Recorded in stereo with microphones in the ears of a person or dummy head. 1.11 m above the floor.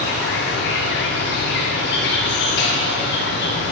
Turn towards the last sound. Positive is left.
turn(degrees=55)  # may be behind; listen again after turning